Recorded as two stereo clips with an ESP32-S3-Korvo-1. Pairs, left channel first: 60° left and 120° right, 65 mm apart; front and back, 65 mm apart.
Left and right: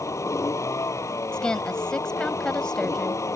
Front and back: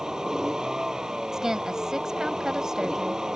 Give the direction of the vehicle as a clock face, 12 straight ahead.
9 o'clock.